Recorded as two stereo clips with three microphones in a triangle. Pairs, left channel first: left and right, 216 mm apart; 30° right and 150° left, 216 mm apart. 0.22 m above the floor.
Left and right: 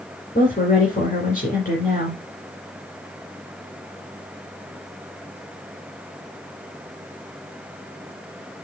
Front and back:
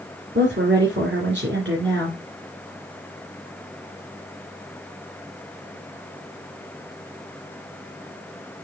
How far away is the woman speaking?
About 2.5 m.